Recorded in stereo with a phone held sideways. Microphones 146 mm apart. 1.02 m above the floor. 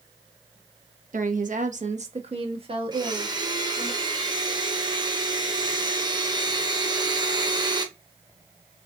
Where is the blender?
30° right (ahead or behind), 1.0 m.